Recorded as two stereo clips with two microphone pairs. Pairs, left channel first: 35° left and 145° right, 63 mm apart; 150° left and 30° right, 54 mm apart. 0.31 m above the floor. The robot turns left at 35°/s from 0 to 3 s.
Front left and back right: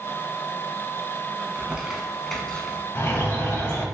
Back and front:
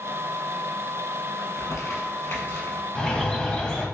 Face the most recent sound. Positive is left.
turn(degrees=80)